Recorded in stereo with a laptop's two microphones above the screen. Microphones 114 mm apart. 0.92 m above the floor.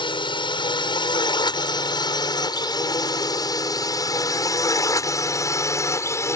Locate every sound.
0.0 s a drone: 45° left (ahead or behind); by 6.4 s 25° left (ahead or behind)